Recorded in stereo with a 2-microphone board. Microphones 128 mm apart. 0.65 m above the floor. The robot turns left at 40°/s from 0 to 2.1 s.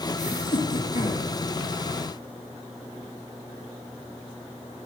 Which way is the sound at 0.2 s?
110° left.